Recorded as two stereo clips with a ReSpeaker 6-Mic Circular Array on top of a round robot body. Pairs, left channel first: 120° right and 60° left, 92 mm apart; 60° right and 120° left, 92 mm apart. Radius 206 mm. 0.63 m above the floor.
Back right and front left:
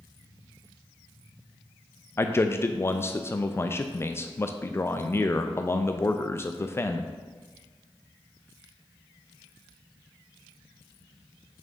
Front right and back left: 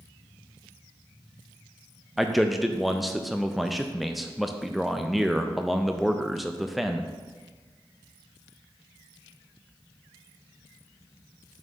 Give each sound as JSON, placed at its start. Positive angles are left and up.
{"t": 2.2, "sound": "a man speaking", "azimuth_deg": -150, "distance_m": 0.6}